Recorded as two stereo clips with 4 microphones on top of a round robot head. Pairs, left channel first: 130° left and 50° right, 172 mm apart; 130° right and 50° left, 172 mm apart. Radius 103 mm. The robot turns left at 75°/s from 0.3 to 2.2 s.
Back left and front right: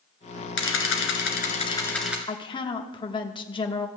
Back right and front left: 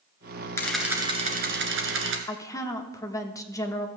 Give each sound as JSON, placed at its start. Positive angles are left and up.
{"t": 0.6, "sound": "a camera shutter", "azimuth_deg": 150, "distance_m": 1.6}
{"t": 2.3, "sound": "a woman speaking", "azimuth_deg": 170, "distance_m": 1.0}